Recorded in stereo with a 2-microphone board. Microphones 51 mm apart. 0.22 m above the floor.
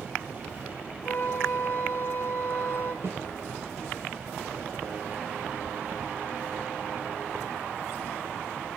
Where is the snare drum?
45° right (ahead or behind), 4.5 m.